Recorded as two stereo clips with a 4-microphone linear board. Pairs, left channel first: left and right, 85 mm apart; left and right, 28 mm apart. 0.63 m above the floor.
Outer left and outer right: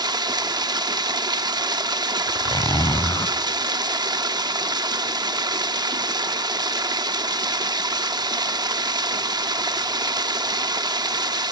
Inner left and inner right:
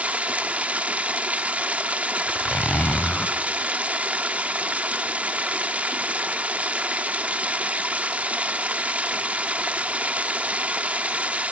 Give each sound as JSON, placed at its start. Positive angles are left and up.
{"t": 0.0, "sound": "running water", "side_deg": -55, "distance_m": 0.7}
{"t": 2.3, "sound": "a zipper", "side_deg": 55, "distance_m": 0.9}